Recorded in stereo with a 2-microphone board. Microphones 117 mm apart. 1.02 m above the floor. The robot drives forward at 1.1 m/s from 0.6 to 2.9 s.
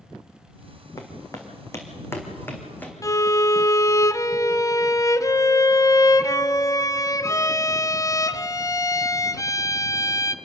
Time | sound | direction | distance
1.0 | footsteps | 30° left (ahead or behind) | 3 m
3.0 | a violin | 30° left (ahead or behind) | 0.6 m